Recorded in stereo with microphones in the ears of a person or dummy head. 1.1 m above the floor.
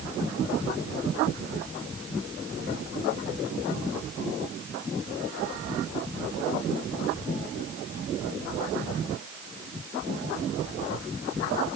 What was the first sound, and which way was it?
Only background noise.